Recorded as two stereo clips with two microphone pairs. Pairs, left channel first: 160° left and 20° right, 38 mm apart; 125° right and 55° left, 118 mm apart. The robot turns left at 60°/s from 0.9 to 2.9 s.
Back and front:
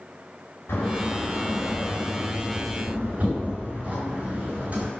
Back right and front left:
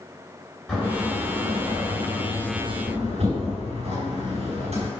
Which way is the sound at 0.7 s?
150° left.